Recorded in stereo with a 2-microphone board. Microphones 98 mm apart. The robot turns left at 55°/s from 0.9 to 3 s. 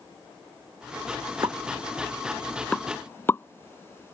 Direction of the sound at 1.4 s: 45° right (ahead or behind).